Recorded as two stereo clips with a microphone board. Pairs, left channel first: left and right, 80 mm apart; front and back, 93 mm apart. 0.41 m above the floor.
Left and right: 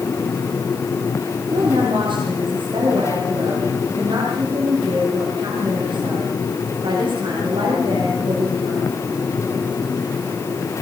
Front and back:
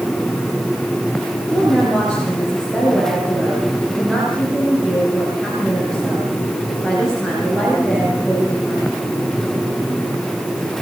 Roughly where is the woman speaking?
Right.